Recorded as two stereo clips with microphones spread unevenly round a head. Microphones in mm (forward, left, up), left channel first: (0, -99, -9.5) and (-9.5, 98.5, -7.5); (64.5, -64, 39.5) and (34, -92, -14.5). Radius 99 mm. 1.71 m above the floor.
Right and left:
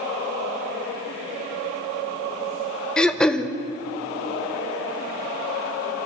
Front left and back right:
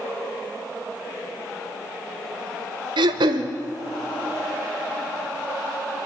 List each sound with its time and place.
3.0 s throat clearing: 175° right, 1.0 m